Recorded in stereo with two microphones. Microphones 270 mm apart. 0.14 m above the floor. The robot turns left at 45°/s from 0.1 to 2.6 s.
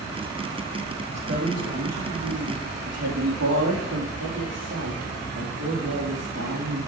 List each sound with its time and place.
1.1 s a woman speaking: 40° right, 4.5 m; by 6.8 s 110° right, 4.5 m